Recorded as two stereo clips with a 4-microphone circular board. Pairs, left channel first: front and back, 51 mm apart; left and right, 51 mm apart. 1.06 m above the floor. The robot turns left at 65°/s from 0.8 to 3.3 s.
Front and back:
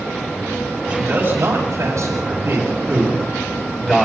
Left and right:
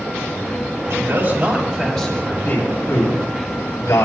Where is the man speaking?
125° right, 8 m; by 4.1 s 80° left, 8 m.